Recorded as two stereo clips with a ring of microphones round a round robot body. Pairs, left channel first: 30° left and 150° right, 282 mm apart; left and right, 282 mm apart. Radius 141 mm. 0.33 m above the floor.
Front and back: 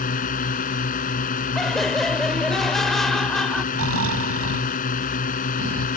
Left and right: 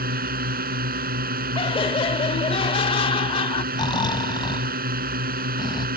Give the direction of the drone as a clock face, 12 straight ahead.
1 o'clock.